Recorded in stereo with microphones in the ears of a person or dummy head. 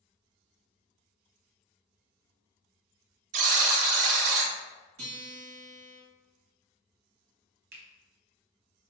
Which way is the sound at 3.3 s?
40° right (ahead or behind).